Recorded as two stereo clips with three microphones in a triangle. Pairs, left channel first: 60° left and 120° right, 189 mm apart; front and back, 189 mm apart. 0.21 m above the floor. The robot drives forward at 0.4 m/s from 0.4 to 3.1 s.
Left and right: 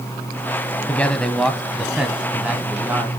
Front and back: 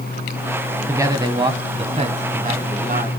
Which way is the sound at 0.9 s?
130° left.